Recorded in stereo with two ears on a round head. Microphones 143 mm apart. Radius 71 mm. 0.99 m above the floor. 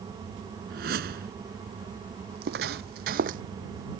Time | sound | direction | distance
0.7 | a whoosh | 65° right (ahead or behind) | ?
2.3 | footsteps | 65° right (ahead or behind) | ?